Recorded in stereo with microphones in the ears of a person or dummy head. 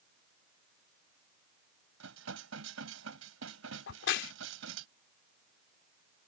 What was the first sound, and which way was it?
Dishes clattering, 75° right (ahead or behind).